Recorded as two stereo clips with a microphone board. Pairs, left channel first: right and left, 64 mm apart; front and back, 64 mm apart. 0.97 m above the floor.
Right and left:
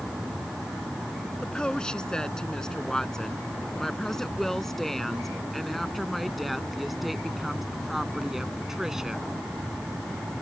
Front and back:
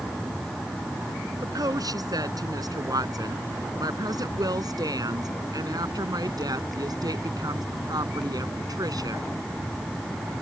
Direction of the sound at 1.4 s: 165° right.